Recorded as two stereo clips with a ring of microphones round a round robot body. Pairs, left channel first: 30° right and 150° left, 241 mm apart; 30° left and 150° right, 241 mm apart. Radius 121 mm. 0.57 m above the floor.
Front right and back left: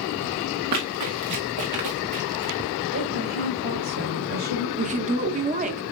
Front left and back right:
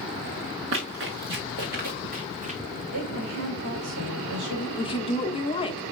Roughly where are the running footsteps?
Behind.